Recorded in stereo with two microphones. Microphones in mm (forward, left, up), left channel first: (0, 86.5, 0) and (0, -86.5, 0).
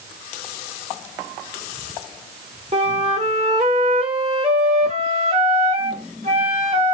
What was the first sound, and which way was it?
A flute, 40° right (ahead or behind).